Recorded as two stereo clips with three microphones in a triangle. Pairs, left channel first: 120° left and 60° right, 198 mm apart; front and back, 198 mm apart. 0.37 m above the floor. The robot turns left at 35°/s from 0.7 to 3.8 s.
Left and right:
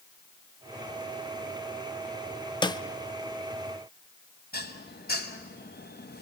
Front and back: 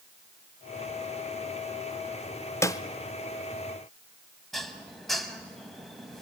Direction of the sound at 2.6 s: 70° left.